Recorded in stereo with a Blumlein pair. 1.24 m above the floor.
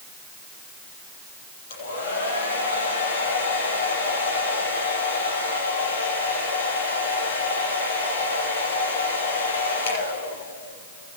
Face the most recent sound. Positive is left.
turn(degrees=55)